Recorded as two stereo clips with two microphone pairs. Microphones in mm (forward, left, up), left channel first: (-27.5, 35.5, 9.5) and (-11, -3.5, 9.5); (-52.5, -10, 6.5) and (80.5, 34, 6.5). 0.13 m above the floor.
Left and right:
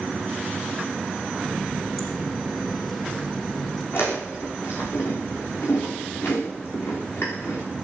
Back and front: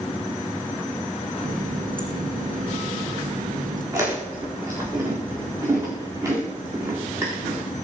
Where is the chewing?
85° left, 7.5 m.